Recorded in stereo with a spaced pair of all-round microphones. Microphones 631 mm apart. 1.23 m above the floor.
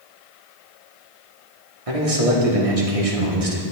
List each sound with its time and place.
1.9 s a man speaking: 60° right (ahead or behind), 1.5 m